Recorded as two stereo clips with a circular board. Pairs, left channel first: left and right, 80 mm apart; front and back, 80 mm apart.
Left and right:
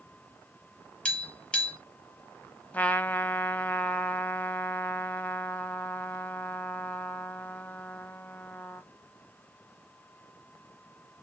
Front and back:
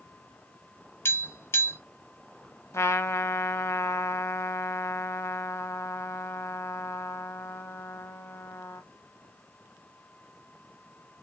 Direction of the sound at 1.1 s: 20° left.